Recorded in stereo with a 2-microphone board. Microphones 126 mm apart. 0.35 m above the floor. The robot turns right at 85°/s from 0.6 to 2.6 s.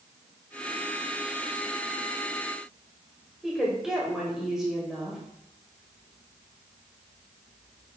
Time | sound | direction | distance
3.4 | a woman speaking | 5° right (ahead or behind) | 1.7 m